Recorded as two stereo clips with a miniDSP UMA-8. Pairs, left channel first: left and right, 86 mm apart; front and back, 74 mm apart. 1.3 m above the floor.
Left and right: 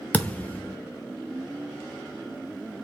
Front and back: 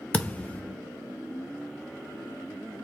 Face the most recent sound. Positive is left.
turn(degrees=40)